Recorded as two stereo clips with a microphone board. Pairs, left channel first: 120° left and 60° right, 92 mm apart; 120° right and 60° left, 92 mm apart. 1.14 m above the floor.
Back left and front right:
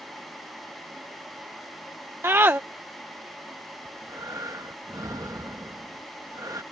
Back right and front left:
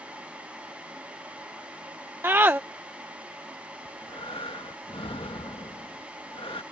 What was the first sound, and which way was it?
A scream, straight ahead.